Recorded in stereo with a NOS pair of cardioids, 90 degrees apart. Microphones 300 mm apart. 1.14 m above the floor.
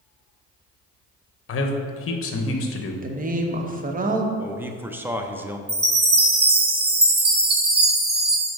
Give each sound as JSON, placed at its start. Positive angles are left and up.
{"t": 1.5, "sound": "a man speaking", "azimuth_deg": 50, "distance_m": 1.0}
{"t": 3.0, "sound": "a woman speaking", "azimuth_deg": -25, "distance_m": 1.0}
{"t": 4.4, "sound": "a man speaking", "azimuth_deg": -5, "distance_m": 0.7}
{"t": 5.7, "sound": "a chime", "azimuth_deg": -35, "distance_m": 1.2}